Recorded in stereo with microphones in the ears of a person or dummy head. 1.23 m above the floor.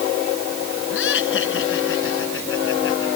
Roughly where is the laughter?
Left.